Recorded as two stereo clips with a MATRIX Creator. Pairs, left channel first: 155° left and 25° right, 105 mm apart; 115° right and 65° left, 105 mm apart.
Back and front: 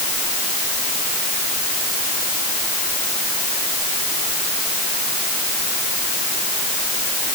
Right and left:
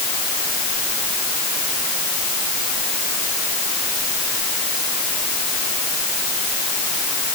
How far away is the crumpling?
No crumpling in this recording.